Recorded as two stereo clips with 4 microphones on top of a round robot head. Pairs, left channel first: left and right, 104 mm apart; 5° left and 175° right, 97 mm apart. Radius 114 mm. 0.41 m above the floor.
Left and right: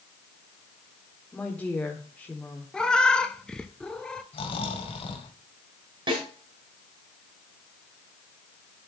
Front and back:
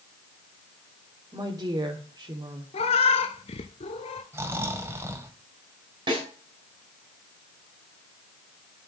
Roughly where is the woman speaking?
Behind.